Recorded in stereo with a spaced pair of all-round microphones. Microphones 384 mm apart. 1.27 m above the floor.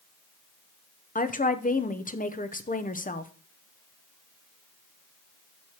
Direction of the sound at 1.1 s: 20° left (ahead or behind).